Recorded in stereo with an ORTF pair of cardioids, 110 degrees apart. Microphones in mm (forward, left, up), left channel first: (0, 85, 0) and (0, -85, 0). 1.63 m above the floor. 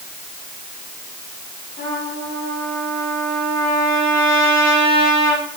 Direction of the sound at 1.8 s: 65° left.